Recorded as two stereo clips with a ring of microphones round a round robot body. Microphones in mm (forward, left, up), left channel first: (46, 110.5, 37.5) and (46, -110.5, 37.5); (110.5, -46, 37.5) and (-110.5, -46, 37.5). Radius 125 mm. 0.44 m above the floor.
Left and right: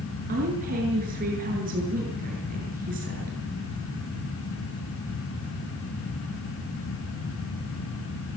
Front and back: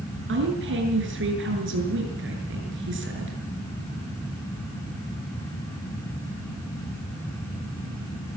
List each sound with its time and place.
0.3 s a woman speaking: 145° right, 7 m